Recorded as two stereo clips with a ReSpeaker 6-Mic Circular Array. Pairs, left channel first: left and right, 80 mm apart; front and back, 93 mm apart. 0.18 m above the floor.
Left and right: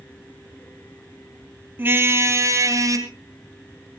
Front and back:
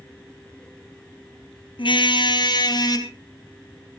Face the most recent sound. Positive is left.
turn(degrees=-45)